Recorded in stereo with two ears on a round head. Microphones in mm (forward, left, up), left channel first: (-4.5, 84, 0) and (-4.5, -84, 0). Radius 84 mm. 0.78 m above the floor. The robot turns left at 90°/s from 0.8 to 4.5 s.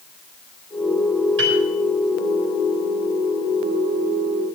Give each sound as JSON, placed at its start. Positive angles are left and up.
{"t": 1.4, "sound": "a piano", "side_deg": -70, "distance_m": 6.5}